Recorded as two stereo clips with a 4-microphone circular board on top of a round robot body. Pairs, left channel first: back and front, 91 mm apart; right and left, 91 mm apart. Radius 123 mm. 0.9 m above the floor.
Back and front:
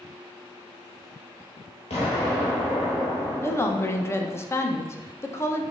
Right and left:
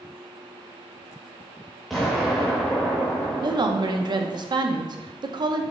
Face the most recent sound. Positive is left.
turn(degrees=120)